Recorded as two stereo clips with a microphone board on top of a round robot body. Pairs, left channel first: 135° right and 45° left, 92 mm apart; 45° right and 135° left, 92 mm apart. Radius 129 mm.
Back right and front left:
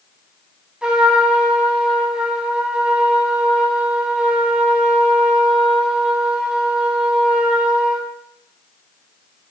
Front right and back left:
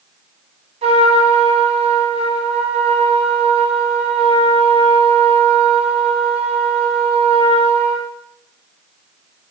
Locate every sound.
0.8 s a trumpet: 125° left, 1.6 m